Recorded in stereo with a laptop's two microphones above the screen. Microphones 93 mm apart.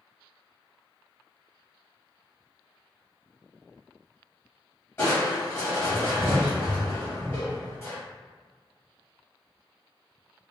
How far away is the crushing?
About 1.0 m.